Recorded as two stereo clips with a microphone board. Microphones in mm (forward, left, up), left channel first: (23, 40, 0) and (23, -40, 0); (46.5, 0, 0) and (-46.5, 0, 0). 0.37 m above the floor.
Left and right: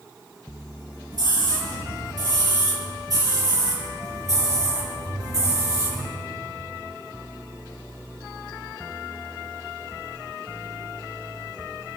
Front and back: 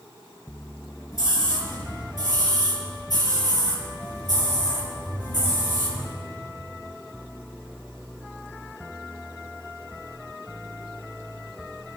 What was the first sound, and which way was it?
A scream, 55° right.